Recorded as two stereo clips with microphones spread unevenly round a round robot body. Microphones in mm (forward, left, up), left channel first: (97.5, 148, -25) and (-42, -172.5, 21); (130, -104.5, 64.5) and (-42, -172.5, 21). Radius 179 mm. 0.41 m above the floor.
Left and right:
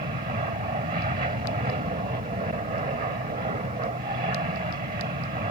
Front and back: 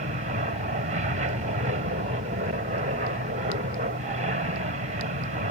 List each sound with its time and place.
0.0 s an aircraft: straight behind